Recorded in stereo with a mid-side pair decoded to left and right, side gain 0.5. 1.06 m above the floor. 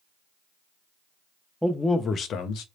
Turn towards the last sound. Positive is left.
turn(degrees=75)